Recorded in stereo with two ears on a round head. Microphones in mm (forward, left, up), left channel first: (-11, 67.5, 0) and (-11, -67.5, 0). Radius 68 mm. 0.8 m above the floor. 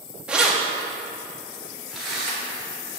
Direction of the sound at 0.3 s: 5° right (ahead or behind).